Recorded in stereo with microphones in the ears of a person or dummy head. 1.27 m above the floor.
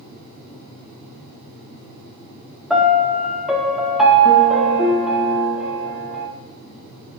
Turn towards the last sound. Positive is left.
turn(degrees=0)  # may be behind; listen again after turning